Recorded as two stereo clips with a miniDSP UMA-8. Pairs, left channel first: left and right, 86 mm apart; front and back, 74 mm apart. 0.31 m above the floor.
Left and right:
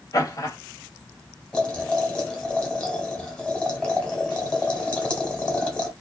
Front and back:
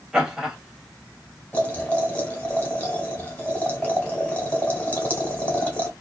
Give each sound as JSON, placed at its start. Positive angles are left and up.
{"t": 0.1, "sound": "laughter", "azimuth_deg": 100, "distance_m": 1.9}
{"t": 1.5, "sound": "boiling", "azimuth_deg": 25, "distance_m": 1.5}